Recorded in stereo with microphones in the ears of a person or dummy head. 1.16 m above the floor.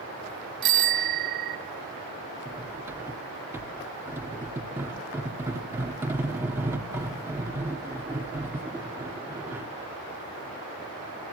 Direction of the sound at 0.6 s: 65° right (ahead or behind).